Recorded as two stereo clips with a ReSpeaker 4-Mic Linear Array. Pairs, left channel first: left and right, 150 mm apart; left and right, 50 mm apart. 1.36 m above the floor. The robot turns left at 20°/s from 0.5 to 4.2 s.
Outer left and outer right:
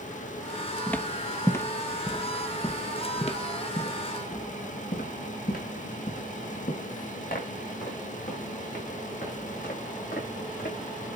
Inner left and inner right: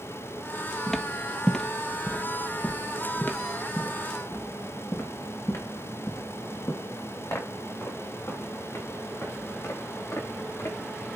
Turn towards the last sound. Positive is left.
turn(degrees=75)  # may be behind; listen again after turning